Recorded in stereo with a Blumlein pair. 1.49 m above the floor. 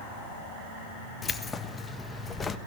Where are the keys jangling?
15° left, 1.3 m.